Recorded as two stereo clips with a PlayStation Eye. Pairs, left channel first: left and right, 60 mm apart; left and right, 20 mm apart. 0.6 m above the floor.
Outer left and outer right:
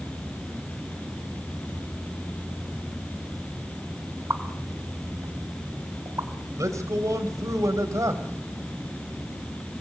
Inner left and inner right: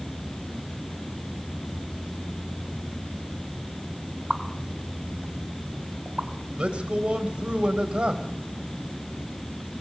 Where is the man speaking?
65° right (ahead or behind), 3.5 m.